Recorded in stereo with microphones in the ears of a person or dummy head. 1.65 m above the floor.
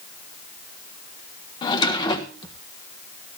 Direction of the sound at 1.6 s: 30° left (ahead or behind).